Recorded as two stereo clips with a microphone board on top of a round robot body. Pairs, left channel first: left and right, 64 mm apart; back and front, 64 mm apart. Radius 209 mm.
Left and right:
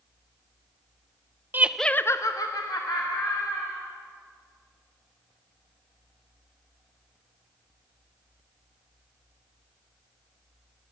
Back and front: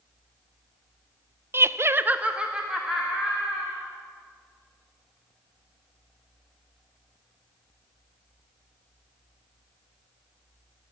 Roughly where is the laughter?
Ahead right.